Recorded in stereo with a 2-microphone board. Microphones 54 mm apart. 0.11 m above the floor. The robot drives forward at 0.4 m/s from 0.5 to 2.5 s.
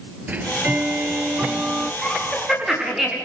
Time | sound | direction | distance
0.3 | ticking | 30° right (ahead or behind) | 0.6 m
2.0 | laughter | 5° right (ahead or behind) | 10 m